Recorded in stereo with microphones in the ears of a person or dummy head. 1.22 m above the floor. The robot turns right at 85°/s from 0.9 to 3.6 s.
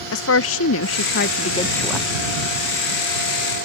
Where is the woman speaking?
95° left; by 2.1 s 165° right.